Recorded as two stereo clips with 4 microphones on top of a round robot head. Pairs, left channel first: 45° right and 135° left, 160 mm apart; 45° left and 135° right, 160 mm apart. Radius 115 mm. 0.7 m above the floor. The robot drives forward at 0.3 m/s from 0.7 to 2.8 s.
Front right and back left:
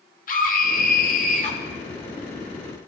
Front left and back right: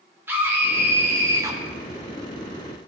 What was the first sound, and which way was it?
A scream, 60° right.